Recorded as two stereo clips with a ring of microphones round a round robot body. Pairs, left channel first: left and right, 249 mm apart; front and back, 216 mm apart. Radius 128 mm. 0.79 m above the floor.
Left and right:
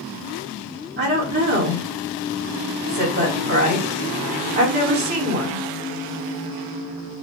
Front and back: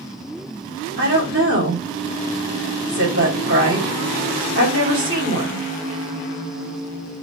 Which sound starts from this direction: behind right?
A woman speaking, at 1.0 s.